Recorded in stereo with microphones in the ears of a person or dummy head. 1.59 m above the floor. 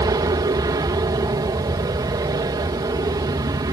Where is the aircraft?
20° right (ahead or behind).